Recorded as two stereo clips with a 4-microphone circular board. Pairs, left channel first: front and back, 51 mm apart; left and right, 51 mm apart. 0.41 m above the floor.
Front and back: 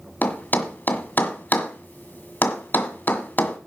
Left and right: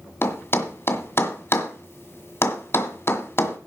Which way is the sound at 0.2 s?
55° left.